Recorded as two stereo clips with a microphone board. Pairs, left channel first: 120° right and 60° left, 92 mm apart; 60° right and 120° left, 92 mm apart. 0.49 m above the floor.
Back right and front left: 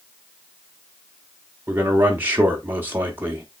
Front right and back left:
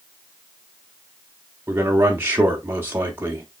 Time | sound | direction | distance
1.7 | a man speaking | 95° left | 0.8 m